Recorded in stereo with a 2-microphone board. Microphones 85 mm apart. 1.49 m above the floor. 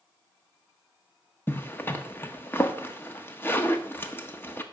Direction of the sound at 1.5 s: 25° left (ahead or behind).